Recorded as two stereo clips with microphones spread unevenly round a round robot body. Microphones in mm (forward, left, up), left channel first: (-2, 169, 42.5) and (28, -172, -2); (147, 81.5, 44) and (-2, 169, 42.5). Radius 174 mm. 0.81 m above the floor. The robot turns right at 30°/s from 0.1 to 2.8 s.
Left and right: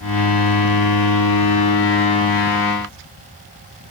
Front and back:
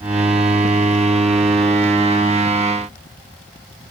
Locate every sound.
Only background noise.